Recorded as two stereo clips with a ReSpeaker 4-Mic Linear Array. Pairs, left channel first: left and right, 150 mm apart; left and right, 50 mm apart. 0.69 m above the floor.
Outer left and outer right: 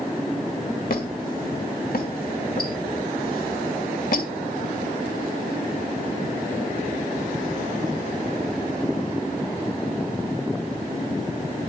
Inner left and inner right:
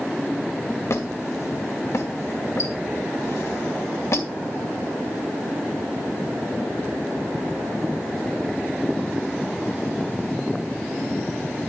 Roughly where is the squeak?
Left.